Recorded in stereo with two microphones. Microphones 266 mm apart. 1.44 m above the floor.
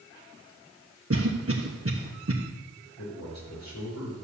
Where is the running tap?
No running tap in this recording.